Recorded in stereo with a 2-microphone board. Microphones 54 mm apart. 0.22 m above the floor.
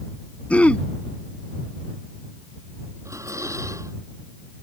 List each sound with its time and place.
0.5 s throat clearing: 25° left (ahead or behind)
3.0 s dishes clattering: 65° right (ahead or behind)